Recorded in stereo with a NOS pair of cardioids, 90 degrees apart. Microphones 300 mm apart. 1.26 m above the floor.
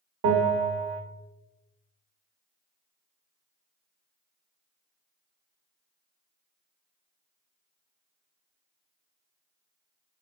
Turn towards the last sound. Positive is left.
turn(degrees=-50)